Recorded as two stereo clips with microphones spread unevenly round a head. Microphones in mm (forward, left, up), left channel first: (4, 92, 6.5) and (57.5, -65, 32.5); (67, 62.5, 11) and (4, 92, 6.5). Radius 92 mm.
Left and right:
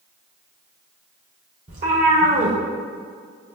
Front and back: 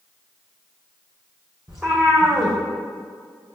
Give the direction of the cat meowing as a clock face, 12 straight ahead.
4 o'clock.